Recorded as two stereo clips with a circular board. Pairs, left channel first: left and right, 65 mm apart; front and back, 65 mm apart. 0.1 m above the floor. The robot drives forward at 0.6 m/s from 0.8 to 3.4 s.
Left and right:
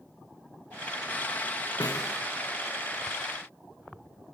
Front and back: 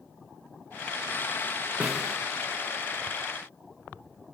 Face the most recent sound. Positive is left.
turn(degrees=130)